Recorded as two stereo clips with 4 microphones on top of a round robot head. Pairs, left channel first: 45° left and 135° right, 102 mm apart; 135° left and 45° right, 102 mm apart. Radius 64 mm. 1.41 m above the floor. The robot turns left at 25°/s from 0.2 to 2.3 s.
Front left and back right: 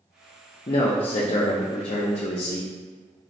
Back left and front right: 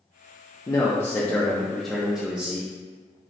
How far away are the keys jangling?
I don't hear keys jangling.